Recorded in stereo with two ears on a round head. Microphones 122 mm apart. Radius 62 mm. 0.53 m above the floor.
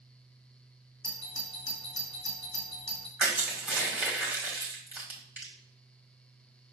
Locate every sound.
1.0 s a doorbell: 30° left (ahead or behind), 1.5 m
3.2 s crushing: 10° right (ahead or behind), 1.9 m